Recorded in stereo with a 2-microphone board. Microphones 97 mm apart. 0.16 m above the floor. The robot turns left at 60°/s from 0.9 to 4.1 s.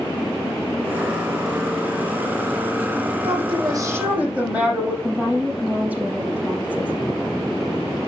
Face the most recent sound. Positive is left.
turn(degrees=-15)  # may be behind; listen again after turning